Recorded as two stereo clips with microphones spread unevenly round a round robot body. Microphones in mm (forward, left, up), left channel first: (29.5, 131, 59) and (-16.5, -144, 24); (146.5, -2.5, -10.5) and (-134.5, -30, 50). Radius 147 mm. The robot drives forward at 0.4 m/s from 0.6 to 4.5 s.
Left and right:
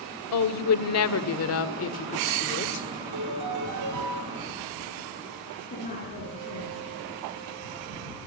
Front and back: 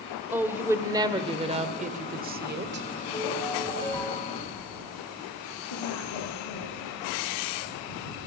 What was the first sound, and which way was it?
A woman speaking, 95° left.